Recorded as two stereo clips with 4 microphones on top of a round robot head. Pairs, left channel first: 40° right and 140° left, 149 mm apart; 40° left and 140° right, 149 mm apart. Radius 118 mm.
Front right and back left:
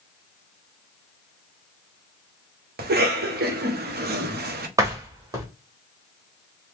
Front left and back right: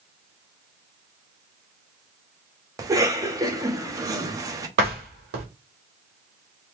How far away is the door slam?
About 1.2 m.